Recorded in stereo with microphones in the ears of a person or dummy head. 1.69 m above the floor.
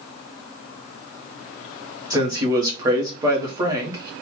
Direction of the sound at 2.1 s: 25° right (ahead or behind).